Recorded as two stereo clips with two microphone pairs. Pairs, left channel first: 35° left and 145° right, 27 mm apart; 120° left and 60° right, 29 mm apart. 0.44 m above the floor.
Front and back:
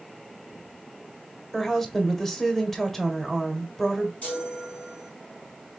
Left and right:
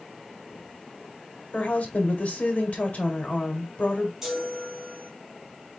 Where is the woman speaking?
115° left, 1.4 m.